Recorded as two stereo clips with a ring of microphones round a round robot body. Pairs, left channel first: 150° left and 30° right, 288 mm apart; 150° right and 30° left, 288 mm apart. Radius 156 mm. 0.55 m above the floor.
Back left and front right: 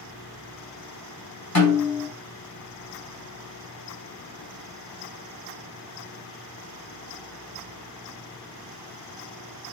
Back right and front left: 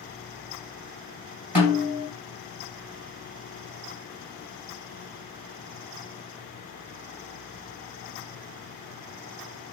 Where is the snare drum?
115° left, 3 m.